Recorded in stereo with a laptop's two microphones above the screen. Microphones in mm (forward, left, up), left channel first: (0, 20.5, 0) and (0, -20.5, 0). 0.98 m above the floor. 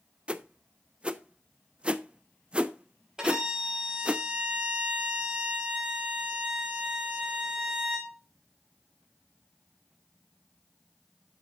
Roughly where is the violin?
Centre.